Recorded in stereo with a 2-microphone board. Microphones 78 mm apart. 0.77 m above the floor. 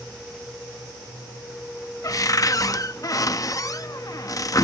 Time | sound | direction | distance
2.0 | a cupboard door | 45° left (ahead or behind) | ?